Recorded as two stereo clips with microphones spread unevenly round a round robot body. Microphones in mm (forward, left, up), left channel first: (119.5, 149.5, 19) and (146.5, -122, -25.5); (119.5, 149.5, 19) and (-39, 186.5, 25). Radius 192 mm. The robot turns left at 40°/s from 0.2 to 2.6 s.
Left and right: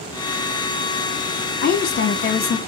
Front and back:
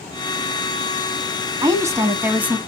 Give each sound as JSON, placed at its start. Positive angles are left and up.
{"t": 1.6, "sound": "a woman speaking", "azimuth_deg": 125, "distance_m": 1.2}